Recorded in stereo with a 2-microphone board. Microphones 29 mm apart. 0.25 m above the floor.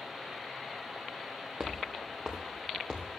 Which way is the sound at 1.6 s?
25° right (ahead or behind).